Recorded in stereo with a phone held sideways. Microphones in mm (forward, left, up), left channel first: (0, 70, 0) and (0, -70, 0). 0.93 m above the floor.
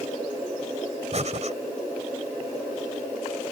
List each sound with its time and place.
1.1 s breathing: 55° right (ahead or behind)